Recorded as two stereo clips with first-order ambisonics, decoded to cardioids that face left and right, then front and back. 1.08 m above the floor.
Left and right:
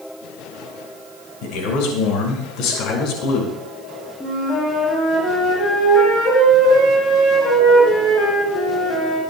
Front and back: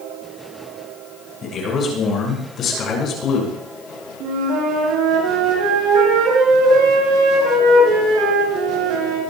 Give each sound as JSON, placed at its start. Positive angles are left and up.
{"t": 1.4, "sound": "a man speaking", "azimuth_deg": 65, "distance_m": 6.0}
{"t": 4.2, "sound": "a flute", "azimuth_deg": 160, "distance_m": 8.5}